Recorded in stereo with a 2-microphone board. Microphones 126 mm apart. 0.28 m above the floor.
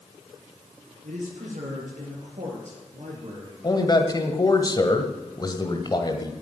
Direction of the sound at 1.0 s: 75° right (ahead or behind).